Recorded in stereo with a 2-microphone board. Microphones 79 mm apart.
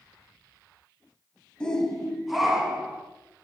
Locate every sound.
1.6 s a shout: 10° left (ahead or behind), 1.5 m; by 3.0 s 10° right (ahead or behind), 2.5 m